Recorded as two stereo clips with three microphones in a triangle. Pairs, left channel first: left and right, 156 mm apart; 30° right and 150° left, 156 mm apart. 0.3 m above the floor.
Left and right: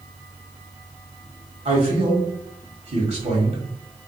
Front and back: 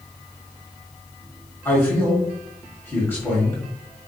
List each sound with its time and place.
1.6 s a man speaking: 100° right, 1.4 m